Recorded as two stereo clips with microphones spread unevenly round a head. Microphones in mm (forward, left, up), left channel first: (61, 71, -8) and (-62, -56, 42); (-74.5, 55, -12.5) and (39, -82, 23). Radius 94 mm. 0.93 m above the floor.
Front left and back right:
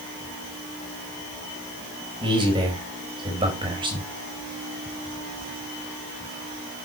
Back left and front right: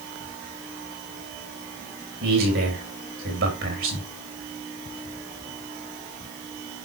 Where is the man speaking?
65° right, 4.5 m.